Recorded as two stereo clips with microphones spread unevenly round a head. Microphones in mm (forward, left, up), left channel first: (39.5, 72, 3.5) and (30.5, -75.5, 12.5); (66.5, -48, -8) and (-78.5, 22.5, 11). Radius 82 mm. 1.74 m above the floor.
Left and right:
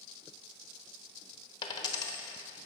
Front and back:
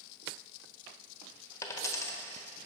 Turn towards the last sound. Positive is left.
turn(degrees=45)